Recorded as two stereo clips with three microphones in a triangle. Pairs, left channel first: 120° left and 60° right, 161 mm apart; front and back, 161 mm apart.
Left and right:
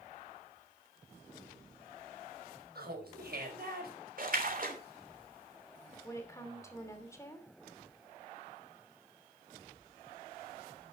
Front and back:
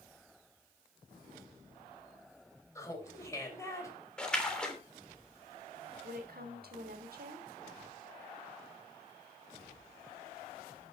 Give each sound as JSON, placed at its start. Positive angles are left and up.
{"t": 2.8, "sound": "laughter", "azimuth_deg": -70, "distance_m": 5.0}
{"t": 4.2, "sound": "a splash", "azimuth_deg": -85, "distance_m": 3.0}
{"t": 6.0, "sound": "a woman speaking", "azimuth_deg": -170, "distance_m": 3.0}